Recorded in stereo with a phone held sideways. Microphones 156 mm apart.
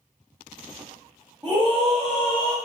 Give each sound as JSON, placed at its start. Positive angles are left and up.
{"t": 1.4, "sound": "a scream", "side_deg": -25, "distance_m": 1.3}